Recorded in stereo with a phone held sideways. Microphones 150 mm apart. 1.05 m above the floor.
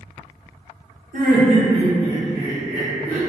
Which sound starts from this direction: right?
Laughter, at 1.1 s.